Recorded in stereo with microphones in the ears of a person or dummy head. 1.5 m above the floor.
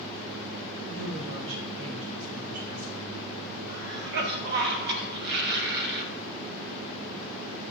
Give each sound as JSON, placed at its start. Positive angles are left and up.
{"t": 0.9, "sound": "a woman speaking", "side_deg": -80, "distance_m": 1.2}
{"t": 3.7, "sound": "a cough", "side_deg": -60, "distance_m": 1.0}